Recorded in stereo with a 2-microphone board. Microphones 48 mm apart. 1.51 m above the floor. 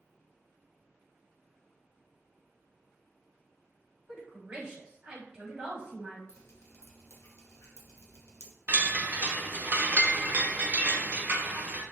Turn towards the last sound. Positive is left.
turn(degrees=-35)  # may be behind; listen again after turning